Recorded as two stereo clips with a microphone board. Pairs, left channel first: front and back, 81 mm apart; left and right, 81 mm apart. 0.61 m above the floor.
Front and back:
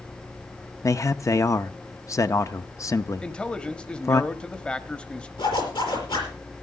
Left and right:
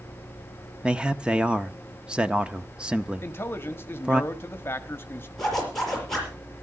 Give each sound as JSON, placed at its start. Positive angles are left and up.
{"t": 0.8, "sound": "a man speaking", "azimuth_deg": -15, "distance_m": 0.7}
{"t": 3.2, "sound": "a man speaking", "azimuth_deg": 65, "distance_m": 1.3}
{"t": 5.4, "sound": "a zipper", "azimuth_deg": 5, "distance_m": 5.5}